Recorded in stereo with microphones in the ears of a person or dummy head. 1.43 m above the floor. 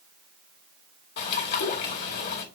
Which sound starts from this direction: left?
A bird, at 1.2 s.